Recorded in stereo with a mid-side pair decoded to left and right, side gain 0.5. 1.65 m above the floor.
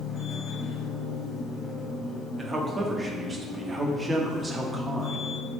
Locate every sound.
0.0 s a machine running: 50° left, 0.8 m
2.4 s a man speaking: 25° right, 0.7 m